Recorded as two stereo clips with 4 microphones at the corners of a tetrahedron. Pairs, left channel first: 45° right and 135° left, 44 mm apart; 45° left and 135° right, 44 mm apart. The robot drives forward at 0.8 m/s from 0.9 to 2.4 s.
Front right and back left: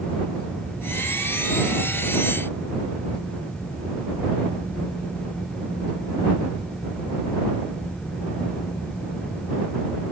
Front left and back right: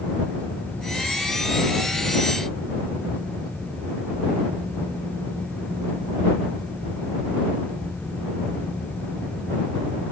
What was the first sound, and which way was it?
Only background noise.